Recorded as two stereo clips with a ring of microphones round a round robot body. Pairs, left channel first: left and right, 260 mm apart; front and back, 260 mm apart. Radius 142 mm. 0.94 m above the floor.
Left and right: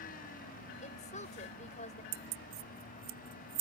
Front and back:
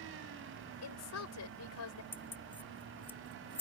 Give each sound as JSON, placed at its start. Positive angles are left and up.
{"t": 0.8, "sound": "a woman speaking", "azimuth_deg": 25}
{"t": 2.1, "sound": "keys jangling", "azimuth_deg": -85}